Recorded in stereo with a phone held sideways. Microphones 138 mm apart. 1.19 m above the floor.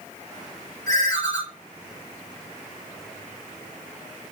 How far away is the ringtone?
About 1.2 m.